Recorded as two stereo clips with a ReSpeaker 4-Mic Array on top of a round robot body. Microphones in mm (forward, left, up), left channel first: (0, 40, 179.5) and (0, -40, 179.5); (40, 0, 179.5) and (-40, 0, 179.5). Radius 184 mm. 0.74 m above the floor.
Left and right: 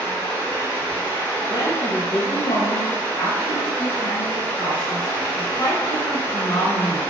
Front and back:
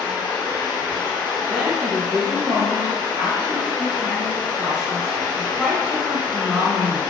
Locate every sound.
0.0 s running water: 25° left, 1.1 m
1.5 s a woman speaking: 90° left, 1.2 m